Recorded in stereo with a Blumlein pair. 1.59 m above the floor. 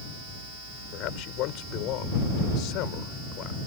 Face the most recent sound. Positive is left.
turn(degrees=40)